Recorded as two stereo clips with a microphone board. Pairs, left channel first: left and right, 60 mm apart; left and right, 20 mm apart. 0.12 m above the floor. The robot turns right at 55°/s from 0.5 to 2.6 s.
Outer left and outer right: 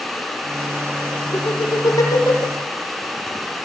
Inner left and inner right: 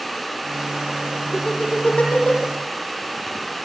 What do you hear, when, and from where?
1.3 s laughter: 45° left (ahead or behind), 6 m; by 2.5 s 65° left (ahead or behind), 6 m